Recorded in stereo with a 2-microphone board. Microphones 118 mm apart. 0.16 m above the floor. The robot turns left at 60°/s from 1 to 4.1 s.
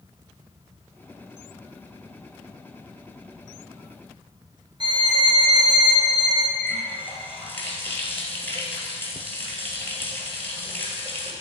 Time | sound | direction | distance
4.8 | a violin | 40° right (ahead or behind) | 1.3 m
6.6 | a running tap | 15° left (ahead or behind) | 2 m